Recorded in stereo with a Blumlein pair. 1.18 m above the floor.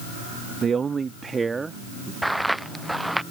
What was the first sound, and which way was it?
A man speaking, 20° right.